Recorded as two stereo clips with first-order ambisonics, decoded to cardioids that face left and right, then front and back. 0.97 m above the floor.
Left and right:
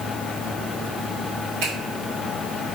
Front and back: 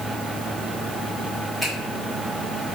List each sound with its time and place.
1.6 s a finger snap: 85° right, 1.7 m